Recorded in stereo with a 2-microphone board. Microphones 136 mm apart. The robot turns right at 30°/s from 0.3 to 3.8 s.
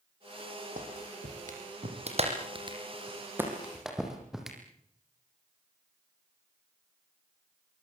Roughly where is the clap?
Right.